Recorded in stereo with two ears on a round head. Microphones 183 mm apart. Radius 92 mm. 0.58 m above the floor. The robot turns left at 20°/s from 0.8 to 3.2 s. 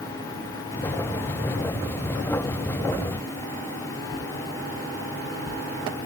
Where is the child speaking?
I don't hear a child speaking.